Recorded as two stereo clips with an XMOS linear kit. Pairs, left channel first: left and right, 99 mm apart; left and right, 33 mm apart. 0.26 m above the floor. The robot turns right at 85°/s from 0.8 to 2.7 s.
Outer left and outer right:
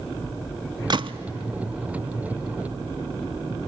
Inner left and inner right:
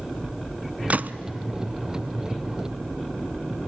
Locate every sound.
0.9 s a gunshot: 45° right (ahead or behind), 0.5 m; by 1.2 s 70° right (ahead or behind), 0.5 m